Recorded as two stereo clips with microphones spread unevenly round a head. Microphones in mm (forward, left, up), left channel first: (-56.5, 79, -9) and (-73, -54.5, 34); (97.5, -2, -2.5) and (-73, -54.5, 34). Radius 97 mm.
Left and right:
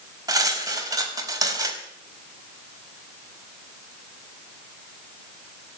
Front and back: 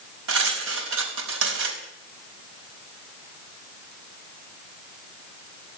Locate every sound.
0.3 s cutlery clinking: 155° right, 4.5 m